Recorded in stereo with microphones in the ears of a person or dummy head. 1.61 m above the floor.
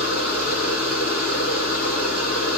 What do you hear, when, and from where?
0.0 s a machine running: 5° left (ahead or behind), 2.5 m